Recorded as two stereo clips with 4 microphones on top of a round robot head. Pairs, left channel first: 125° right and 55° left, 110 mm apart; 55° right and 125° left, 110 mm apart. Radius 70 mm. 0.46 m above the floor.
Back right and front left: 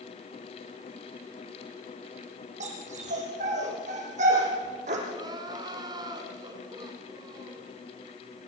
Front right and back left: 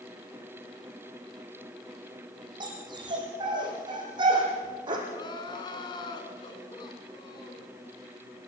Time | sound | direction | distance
2.6 | a dog barking | 75° left | 5.5 m
5.1 | crying | straight ahead | 3 m